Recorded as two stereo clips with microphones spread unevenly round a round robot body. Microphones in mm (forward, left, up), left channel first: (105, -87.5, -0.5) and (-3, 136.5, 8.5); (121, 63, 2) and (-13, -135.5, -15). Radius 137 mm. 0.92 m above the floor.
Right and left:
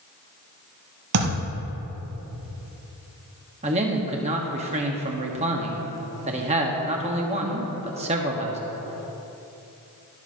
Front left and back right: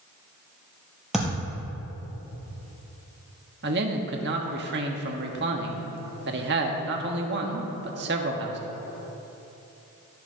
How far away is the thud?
About 4.5 m.